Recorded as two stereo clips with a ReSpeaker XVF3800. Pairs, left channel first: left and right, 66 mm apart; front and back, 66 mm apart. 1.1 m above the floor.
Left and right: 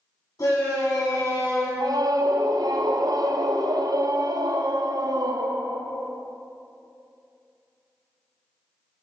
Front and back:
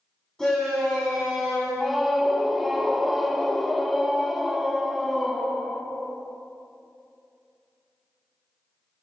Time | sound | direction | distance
0.4 | a shout | 80° left | 2.5 m
1.8 | a scream | 90° right | 0.6 m